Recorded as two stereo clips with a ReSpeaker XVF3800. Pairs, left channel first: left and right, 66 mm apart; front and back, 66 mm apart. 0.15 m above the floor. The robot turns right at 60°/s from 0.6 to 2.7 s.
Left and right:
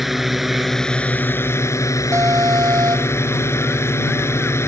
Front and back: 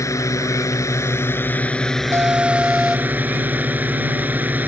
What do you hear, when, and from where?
0.0 s a drone: 5° right; by 4.7 s 125° left
2.1 s an alarm: 135° right; by 3.2 s 100° right